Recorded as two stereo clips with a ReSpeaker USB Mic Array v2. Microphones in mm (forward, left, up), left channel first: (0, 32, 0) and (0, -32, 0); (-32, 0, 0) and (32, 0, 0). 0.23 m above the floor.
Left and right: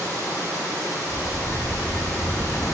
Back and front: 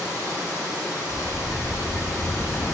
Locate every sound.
0.0 s running water: 30° right, 6 m
1.1 s a sliding door: 120° left, 1.6 m